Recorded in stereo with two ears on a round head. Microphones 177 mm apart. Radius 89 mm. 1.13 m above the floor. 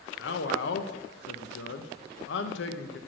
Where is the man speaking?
65° left (ahead or behind), 0.8 m.